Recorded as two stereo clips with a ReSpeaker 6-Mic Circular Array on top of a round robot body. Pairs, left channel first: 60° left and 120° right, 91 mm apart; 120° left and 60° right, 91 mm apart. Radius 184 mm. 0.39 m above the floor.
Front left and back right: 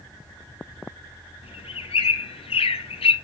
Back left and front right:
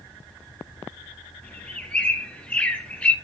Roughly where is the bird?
Ahead left.